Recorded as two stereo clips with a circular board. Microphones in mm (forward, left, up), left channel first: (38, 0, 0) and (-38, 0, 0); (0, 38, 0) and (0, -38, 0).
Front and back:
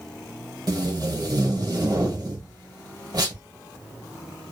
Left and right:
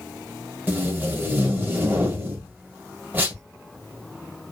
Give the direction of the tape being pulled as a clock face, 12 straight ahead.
5 o'clock.